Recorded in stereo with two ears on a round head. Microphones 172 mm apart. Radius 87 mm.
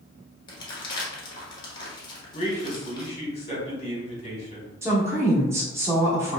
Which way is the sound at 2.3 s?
35° left (ahead or behind).